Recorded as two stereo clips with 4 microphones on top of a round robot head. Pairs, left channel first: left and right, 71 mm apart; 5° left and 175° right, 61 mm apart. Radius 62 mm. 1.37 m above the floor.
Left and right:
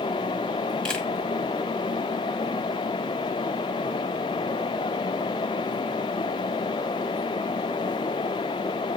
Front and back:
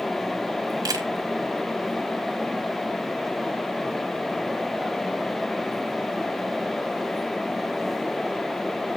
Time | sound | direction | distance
0.8 | a camera shutter | 170° left | 1.5 m